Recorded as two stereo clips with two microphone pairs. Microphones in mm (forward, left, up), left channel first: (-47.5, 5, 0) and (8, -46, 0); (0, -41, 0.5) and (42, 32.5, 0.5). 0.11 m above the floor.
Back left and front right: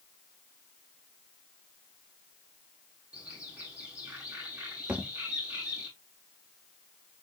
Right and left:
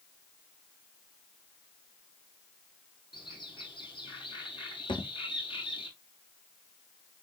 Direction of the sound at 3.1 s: 115° right.